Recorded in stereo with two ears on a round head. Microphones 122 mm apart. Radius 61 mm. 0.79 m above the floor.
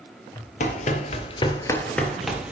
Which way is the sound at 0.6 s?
55° left (ahead or behind).